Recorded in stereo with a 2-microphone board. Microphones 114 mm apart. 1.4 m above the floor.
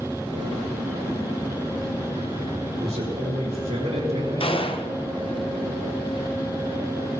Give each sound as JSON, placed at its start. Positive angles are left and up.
{"t": 2.8, "sound": "a man speaking", "side_deg": -80, "distance_m": 4.0}
{"t": 4.4, "sound": "a gunshot", "side_deg": 50, "distance_m": 0.8}